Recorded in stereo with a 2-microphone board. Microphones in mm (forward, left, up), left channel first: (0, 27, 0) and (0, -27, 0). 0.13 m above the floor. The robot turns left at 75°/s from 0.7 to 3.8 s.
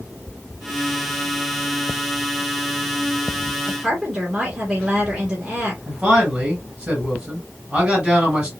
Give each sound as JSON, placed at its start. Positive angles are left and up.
{"t": 3.7, "sound": "a woman speaking", "side_deg": -10, "distance_m": 1.9}
{"t": 5.9, "sound": "a man speaking", "side_deg": -20, "distance_m": 2.5}